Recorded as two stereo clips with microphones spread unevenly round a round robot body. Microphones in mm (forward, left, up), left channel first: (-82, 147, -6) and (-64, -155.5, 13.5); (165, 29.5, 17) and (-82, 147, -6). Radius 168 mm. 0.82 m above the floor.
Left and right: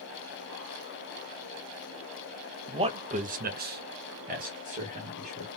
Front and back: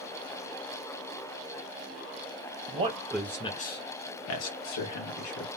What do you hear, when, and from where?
2.7 s a man speaking: 160° right, 0.8 m; by 5.5 s 15° right, 1.5 m